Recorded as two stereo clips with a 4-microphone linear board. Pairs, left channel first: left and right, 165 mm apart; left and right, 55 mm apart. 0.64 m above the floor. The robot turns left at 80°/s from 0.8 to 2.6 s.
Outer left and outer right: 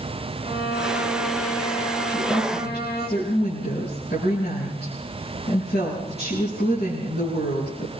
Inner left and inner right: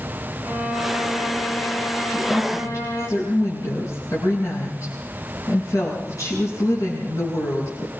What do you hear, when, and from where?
0.4 s a violin: 140° right, 4 m; by 3.1 s 75° left, 4 m
2.1 s a woman speaking: 135° left, 7.5 m; by 7.9 s 95° left, 7.5 m